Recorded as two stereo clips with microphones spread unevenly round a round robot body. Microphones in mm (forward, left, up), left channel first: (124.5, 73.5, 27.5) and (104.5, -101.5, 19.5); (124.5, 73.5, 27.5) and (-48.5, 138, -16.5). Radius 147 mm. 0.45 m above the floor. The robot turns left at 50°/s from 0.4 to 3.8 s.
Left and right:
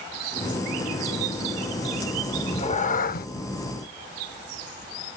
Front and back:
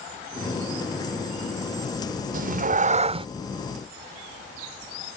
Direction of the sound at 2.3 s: 155° left.